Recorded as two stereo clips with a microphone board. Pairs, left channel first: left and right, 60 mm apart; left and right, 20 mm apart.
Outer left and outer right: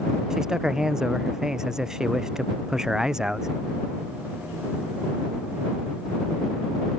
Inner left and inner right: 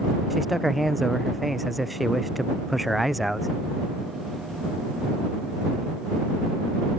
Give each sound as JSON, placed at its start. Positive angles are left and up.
{"t": 0.3, "sound": "a man speaking", "side_deg": -10}